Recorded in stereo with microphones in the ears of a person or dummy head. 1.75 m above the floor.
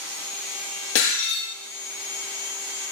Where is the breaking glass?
75° left (ahead or behind), 8.5 m.